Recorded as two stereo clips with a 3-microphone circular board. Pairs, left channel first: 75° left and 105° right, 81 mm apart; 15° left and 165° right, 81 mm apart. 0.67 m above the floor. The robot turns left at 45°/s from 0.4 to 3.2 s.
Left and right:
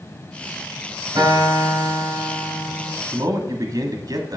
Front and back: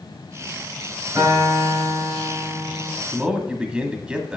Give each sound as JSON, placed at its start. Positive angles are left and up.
{"t": 1.1, "sound": "a guitar", "azimuth_deg": -115, "distance_m": 4.0}
{"t": 3.1, "sound": "a man speaking", "azimuth_deg": -90, "distance_m": 1.4}